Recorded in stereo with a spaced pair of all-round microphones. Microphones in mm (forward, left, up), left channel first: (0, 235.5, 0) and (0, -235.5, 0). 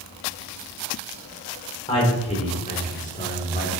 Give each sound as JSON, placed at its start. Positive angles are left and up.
{"t": 1.9, "sound": "a man speaking", "side_deg": 10, "distance_m": 4.5}